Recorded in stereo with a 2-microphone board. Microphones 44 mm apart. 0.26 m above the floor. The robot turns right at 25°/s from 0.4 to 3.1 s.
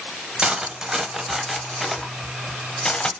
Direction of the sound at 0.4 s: 20° right (ahead or behind).